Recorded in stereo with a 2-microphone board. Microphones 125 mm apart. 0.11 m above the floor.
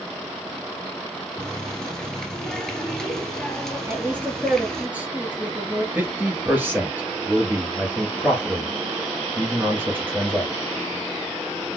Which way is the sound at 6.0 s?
15° right (ahead or behind).